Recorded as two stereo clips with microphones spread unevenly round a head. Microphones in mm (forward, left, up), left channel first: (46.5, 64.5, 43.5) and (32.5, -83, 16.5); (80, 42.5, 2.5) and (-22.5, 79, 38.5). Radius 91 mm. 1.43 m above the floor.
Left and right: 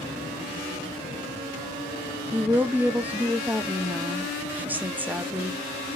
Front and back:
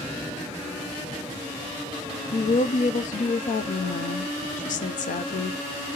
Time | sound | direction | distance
2.3 | a woman speaking | 15° right | 0.6 m